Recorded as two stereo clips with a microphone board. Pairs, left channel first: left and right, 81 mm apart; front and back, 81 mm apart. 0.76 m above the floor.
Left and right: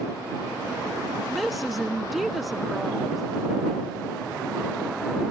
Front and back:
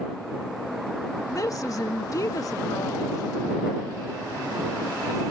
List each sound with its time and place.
1.3 s a woman speaking: 5° right